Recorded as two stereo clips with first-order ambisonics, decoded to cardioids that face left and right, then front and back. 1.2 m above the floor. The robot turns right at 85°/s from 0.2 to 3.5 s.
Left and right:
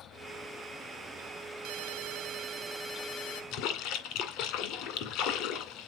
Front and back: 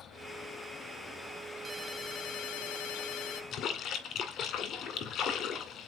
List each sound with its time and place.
1.6 s a ringtone: 105° right, 1.3 m; by 3.4 s 50° left, 1.3 m
3.5 s a splash: 55° left, 2 m